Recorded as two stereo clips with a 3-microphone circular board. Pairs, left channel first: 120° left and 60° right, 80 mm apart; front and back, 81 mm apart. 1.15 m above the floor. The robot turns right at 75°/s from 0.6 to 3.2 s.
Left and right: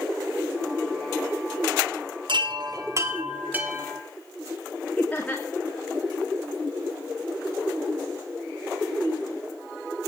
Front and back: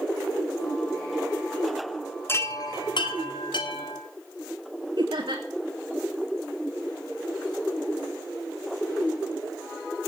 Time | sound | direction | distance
2.3 | a chime | 60° right | 2.5 m
5.0 | laughter | 170° right | 2.5 m